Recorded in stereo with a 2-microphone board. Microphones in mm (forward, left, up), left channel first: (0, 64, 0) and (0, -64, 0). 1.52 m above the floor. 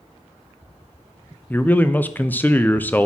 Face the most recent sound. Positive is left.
turn(degrees=15)  # may be behind; listen again after turning